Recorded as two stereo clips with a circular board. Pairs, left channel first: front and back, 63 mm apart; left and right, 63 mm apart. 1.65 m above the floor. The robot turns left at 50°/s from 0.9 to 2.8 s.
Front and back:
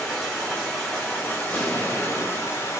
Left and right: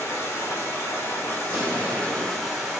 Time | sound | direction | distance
0.0 | running water | 85° left | 1.3 m
1.4 | an explosion | 45° right | 1.1 m